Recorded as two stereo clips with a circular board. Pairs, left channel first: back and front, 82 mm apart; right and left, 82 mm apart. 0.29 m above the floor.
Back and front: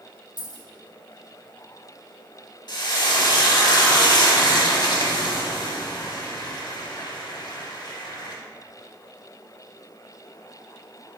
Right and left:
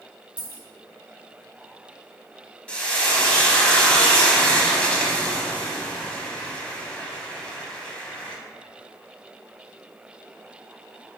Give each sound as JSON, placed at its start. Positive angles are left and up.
{"t": 0.4, "sound": "a dropped coin", "azimuth_deg": -165, "distance_m": 1.6}
{"t": 2.7, "sound": "frying", "azimuth_deg": -165, "distance_m": 0.6}